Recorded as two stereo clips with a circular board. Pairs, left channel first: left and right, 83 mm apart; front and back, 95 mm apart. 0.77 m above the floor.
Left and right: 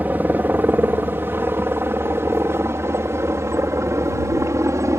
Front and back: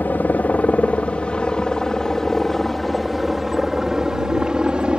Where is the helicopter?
50° right; by 5.0 s 105° right.